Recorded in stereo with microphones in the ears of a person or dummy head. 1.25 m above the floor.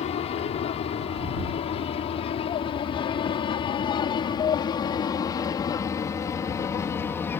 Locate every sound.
0.0 s an aircraft: 35° left (ahead or behind); by 7.4 s 15° left (ahead or behind)